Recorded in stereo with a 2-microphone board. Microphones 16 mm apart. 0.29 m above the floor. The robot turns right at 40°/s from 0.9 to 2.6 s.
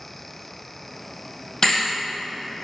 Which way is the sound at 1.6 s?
25° left (ahead or behind).